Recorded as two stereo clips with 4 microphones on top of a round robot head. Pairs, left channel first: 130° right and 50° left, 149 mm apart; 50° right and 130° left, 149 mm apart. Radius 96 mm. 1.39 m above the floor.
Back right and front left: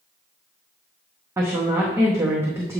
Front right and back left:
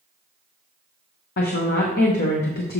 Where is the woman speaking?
25° right, 0.9 m.